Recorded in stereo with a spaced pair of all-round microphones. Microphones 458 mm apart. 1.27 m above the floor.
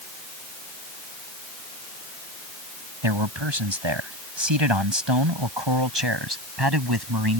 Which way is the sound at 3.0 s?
80° right.